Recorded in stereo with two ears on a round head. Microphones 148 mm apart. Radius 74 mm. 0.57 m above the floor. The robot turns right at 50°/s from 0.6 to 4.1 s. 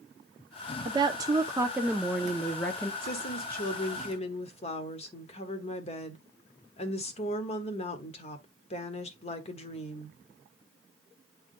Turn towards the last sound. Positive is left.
turn(degrees=135)